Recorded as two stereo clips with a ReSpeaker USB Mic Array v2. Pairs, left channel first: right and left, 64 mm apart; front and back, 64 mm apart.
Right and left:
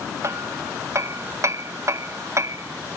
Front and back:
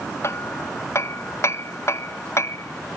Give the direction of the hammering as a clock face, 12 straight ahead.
10 o'clock.